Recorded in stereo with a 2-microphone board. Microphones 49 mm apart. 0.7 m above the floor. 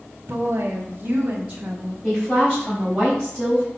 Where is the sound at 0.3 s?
40° right (ahead or behind), 2 m; by 1.9 s 10° right (ahead or behind), 1.4 m.